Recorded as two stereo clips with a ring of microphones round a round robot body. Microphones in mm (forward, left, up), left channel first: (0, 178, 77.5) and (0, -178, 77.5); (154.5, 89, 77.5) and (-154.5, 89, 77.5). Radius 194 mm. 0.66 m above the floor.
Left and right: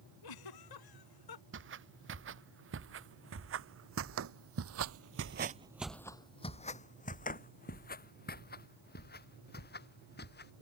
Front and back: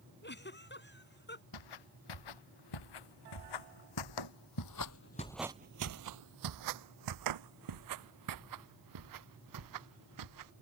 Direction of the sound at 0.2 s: 60° left.